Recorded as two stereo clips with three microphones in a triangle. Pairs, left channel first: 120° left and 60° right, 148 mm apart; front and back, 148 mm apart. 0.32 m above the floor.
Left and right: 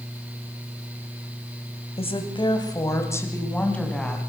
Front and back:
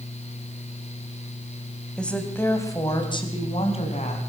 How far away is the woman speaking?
About 2.5 m.